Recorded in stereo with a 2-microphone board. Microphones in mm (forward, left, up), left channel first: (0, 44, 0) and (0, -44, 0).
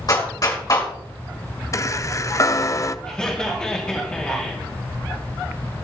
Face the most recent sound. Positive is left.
turn(degrees=15)  # may be behind; listen again after turning